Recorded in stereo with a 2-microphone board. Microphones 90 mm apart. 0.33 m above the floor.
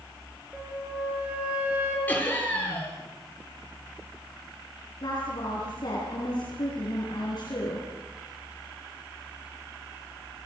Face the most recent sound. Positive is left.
turn(degrees=55)  # may be behind; listen again after turning